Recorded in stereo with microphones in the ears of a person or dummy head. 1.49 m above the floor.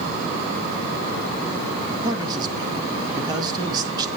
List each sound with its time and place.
2.0 s a man speaking: 20° right (ahead or behind), 2 m